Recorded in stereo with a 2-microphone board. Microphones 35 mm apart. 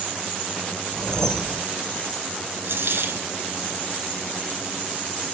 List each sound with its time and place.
0.9 s a whoosh: 20° left (ahead or behind), 1.1 m
2.6 s a dropped coin: 80° right, 2 m